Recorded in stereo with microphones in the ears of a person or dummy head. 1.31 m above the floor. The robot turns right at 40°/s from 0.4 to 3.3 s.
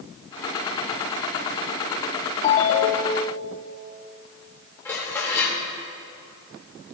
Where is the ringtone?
35° left, 1.3 m; by 3.3 s 70° left, 1.3 m.